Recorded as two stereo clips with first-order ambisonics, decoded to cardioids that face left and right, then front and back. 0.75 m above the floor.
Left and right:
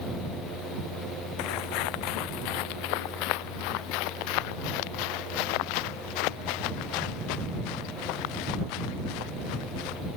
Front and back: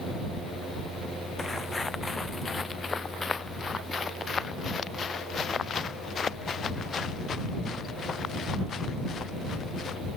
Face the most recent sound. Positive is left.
turn(degrees=70)